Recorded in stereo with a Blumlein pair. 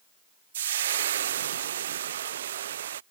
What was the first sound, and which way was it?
Frying, 60° right.